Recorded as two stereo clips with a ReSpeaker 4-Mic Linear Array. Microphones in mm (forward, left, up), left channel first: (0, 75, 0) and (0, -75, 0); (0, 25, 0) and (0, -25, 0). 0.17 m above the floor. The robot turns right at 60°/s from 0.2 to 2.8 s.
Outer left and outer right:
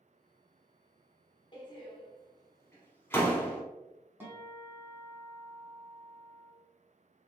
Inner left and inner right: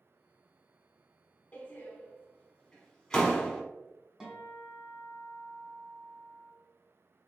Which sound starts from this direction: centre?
A guitar, at 4.2 s.